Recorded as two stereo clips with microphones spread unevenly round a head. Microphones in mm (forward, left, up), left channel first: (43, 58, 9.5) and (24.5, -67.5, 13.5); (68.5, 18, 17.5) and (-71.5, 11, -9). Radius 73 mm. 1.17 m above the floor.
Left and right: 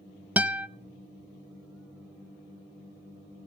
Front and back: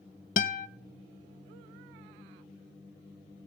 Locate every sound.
0.4 s a guitar: 20° right, 0.6 m